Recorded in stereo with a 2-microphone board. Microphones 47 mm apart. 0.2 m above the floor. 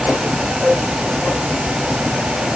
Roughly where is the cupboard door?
I don't hear a cupboard door.